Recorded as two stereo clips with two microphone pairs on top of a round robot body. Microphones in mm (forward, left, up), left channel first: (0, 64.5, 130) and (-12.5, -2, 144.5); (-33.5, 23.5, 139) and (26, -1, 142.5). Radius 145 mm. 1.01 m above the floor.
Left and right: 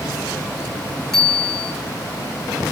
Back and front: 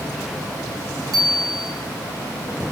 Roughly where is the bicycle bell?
Ahead.